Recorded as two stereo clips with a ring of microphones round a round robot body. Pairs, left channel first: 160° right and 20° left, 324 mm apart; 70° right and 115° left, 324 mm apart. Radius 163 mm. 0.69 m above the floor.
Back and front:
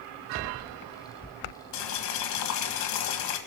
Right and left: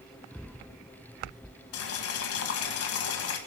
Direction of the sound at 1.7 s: 115° right.